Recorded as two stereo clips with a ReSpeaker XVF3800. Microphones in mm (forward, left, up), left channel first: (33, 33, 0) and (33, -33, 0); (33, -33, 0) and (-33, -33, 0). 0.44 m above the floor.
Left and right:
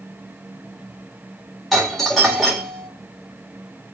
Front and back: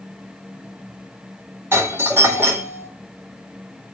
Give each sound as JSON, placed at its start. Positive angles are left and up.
{"t": 1.7, "sound": "a doorbell", "azimuth_deg": 175, "distance_m": 2.0}